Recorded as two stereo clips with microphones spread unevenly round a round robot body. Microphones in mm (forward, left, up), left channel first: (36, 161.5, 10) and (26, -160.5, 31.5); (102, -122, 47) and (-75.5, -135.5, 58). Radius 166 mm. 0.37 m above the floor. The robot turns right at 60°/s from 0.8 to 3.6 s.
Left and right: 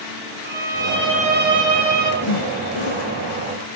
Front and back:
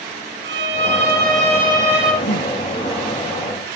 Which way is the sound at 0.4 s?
165° right.